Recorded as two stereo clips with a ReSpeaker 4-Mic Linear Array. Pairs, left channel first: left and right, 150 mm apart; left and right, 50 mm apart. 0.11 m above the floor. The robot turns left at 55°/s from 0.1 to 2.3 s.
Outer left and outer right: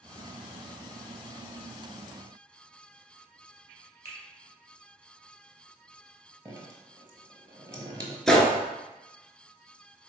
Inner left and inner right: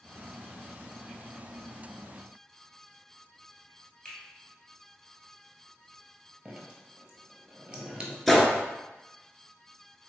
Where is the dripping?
20° right (ahead or behind), 0.7 m.